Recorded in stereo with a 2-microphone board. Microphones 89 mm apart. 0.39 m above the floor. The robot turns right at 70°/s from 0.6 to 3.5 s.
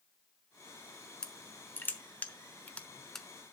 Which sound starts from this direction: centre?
Crushing, at 1.2 s.